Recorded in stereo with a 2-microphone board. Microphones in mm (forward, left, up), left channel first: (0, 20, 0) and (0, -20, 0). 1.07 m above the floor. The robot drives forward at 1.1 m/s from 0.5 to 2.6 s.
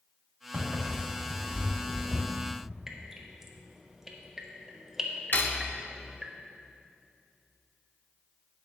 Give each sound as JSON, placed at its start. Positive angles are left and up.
{"t": 0.5, "sound": "footsteps", "side_deg": -55, "distance_m": 3.0}
{"t": 2.9, "sound": "dripping", "side_deg": -10, "distance_m": 1.0}
{"t": 5.3, "sound": "cutlery clinking", "side_deg": 55, "distance_m": 0.8}